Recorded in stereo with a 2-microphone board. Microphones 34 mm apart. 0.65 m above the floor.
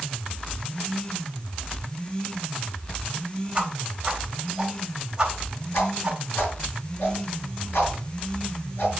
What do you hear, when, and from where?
3.5 s a whoosh: 20° right (ahead or behind), 3.5 m
5.7 s a whoosh: 70° left (ahead or behind), 5.5 m